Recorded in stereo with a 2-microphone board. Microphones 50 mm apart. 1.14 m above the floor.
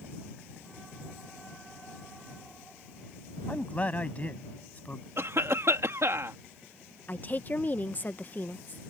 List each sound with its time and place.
3.5 s a man speaking: 30° left (ahead or behind); by 5.1 s 35° left (ahead or behind)
5.2 s a cough: 65° right (ahead or behind)
7.1 s a woman speaking: 35° left (ahead or behind)